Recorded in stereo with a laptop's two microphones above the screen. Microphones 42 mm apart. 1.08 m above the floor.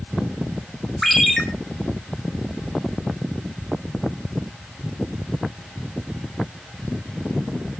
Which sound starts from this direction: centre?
A ringtone, at 1.0 s.